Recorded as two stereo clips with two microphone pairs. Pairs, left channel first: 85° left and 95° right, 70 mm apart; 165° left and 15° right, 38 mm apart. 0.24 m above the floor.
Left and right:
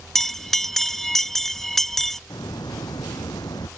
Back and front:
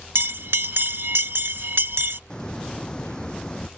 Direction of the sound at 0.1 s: Straight ahead.